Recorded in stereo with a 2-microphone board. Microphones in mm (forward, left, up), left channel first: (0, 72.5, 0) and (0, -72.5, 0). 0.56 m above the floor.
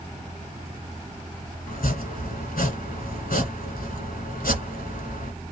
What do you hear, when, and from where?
1.7 s chopping: 75° left (ahead or behind), 1.3 m